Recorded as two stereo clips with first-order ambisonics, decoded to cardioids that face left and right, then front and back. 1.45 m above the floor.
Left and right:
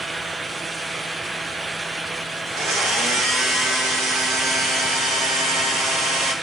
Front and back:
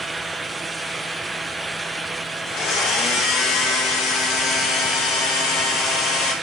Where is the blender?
40° right, 2.5 m.